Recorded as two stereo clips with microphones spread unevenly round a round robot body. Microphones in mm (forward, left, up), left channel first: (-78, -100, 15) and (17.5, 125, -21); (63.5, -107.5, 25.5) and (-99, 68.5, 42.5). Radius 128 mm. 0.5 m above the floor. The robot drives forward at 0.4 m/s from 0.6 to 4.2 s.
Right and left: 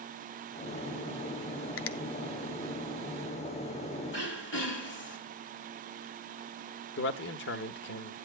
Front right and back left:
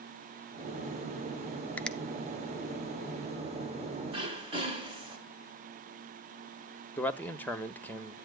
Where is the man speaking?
120° right, 0.8 m.